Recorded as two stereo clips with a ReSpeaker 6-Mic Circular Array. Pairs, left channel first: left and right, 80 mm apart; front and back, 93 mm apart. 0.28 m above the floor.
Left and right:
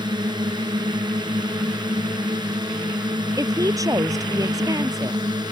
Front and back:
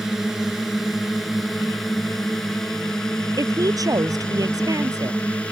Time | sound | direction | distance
0.0 | a drone | 95° right | ?
3.4 | a woman speaking | 135° right | ?